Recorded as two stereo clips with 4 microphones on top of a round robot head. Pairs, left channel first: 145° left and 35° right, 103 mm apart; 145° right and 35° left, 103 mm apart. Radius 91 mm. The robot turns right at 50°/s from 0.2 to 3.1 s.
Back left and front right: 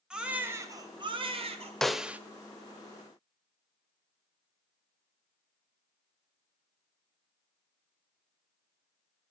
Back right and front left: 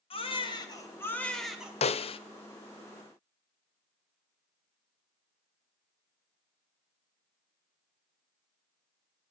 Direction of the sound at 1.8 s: 130° right.